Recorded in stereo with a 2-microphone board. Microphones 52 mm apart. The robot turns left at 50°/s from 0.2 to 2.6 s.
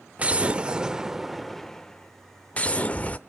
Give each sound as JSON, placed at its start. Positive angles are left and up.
{"t": 0.2, "sound": "an explosion", "azimuth_deg": -115, "distance_m": 0.6}